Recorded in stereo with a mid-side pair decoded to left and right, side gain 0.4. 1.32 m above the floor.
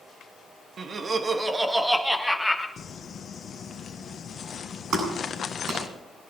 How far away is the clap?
About 9 m.